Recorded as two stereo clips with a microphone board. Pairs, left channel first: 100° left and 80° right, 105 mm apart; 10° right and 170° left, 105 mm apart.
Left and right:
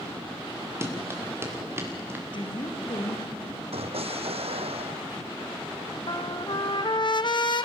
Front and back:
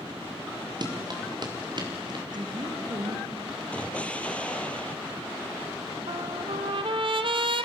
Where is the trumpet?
140° left, 0.9 m.